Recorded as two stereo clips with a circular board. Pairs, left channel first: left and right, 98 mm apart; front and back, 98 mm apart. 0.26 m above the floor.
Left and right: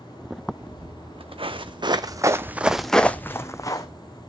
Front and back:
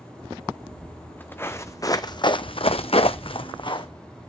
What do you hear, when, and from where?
0.6 s footsteps: 80° right, 1.4 m; by 3.9 s 40° left, 1.0 m